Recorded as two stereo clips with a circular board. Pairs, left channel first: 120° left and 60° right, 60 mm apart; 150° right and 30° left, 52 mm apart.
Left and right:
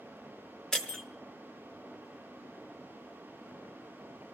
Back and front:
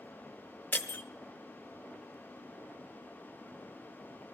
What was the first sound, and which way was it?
Breaking glass, 165° right.